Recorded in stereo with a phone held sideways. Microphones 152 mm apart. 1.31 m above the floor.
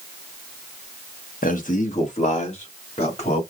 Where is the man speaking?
60° left (ahead or behind), 1.2 m; by 3.4 s 45° left (ahead or behind), 3 m.